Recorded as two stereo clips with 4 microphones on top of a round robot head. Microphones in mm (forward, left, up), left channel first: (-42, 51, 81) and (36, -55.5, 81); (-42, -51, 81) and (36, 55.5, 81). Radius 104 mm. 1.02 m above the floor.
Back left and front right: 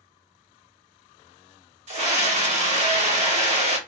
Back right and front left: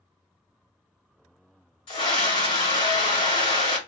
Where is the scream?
80° right, 3 m.